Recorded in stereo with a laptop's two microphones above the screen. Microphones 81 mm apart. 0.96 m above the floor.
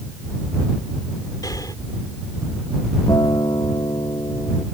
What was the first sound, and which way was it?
Breathing, 55° left (ahead or behind).